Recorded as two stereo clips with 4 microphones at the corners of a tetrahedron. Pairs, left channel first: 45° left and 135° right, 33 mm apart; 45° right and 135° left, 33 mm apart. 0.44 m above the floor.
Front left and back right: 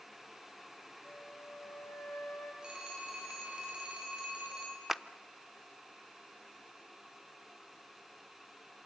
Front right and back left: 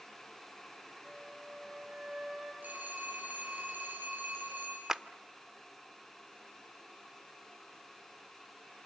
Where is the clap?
175° left, 0.5 m.